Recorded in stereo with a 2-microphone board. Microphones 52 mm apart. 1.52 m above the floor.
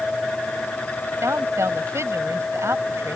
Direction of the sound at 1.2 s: 65° right (ahead or behind).